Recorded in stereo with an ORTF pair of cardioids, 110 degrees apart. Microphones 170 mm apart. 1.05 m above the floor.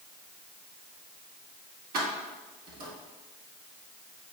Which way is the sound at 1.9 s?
70° right.